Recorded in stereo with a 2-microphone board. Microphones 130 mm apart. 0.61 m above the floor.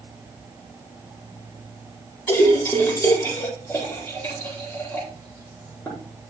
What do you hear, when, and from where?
2.3 s a splash: 15° left (ahead or behind), 9.5 m